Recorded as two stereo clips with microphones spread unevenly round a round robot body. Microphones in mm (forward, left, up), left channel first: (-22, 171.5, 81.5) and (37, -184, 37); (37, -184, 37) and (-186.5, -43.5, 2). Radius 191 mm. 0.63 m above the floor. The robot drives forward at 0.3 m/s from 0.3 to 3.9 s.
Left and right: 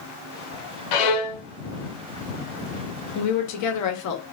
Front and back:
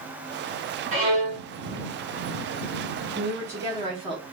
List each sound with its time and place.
0.9 s a violin: 75° left, 1.0 m; by 1.4 s 85° left, 0.9 m
3.1 s a woman speaking: 70° left, 0.9 m; by 4.2 s 95° left, 0.9 m